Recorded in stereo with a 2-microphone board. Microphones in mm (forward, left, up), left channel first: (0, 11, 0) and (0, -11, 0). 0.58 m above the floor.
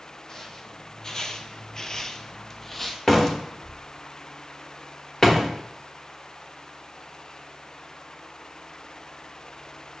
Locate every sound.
0.3 s footsteps: 25° left (ahead or behind), 1.2 m; by 3.0 s 10° left (ahead or behind), 1.0 m
3.1 s a door slam: 20° left (ahead or behind), 1.1 m